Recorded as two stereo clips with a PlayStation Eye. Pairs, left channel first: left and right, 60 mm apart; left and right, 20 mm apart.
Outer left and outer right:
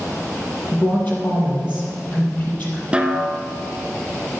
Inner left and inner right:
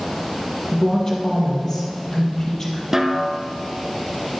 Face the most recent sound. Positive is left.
turn(degrees=-20)  # may be behind; listen again after turning